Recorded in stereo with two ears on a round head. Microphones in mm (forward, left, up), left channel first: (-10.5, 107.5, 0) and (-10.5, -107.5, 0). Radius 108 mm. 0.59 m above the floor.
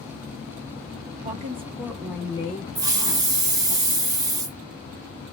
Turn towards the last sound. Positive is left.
turn(degrees=-15)  # may be behind; listen again after turning